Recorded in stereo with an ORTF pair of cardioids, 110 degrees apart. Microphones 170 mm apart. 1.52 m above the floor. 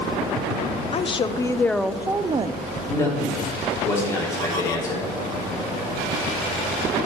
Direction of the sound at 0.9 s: 35° left.